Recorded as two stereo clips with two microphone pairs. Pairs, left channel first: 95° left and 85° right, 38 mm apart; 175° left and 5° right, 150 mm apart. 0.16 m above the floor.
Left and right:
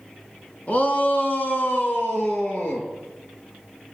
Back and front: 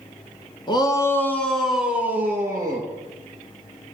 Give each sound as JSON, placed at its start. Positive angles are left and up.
{"t": 0.7, "sound": "a shout", "azimuth_deg": 130, "distance_m": 1.9}